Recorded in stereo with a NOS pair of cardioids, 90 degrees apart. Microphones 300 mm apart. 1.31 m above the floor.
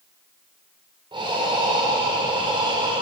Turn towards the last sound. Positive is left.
turn(degrees=-15)